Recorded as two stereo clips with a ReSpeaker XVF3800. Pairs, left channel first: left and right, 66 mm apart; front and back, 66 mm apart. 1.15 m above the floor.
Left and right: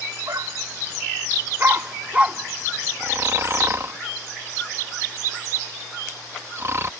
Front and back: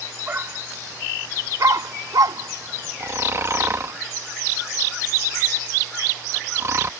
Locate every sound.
0.3 s a dog barking: 120° right; by 4.0 s 155° left
3.0 s snoring: 135° right